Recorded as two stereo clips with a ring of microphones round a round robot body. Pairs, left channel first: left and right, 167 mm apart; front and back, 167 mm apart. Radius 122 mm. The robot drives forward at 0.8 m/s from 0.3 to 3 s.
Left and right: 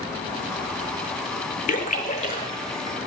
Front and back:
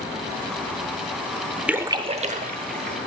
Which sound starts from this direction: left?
A splash, at 1.7 s.